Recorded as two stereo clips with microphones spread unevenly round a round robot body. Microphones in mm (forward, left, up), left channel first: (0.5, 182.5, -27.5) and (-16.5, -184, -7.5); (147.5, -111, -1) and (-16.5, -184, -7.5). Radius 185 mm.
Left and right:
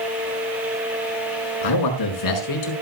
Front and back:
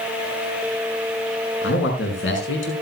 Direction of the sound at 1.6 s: 60° left.